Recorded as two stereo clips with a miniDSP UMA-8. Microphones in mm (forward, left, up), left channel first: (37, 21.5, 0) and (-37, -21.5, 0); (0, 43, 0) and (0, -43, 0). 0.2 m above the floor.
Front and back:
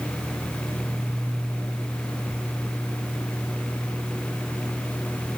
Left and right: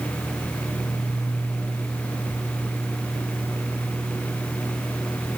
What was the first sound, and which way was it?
Only background noise.